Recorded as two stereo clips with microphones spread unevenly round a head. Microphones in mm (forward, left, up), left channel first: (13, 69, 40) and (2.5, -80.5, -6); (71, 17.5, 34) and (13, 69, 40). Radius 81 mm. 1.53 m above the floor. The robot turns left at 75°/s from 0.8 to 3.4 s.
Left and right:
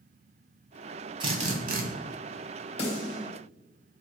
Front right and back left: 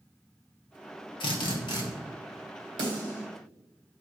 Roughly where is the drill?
Ahead right.